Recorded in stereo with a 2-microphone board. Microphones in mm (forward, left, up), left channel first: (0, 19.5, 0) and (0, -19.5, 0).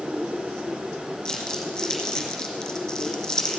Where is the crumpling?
15° left (ahead or behind), 2 m.